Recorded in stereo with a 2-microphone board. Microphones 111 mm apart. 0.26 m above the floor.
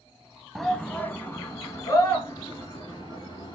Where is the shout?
Centre (ahead or behind), 1.3 m; by 3.5 s 40° left (ahead or behind), 4.5 m.